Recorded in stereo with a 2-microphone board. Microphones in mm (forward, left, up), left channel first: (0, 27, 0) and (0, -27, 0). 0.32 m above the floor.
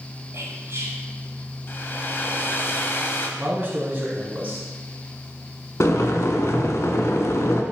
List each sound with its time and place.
0.3 s whispering: 55° right (ahead or behind), 1.9 m
1.7 s a hair dryer: 40° left (ahead or behind), 0.8 m
3.4 s a man speaking: 30° right (ahead or behind), 2.5 m
5.8 s boiling: 65° left (ahead or behind), 0.8 m